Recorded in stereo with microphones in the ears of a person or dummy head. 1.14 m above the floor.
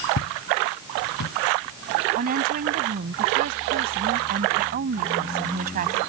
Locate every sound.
0.2 s footsteps: 70° left (ahead or behind); by 1.3 s 75° left (ahead or behind)
2.1 s a woman speaking: 50° right (ahead or behind)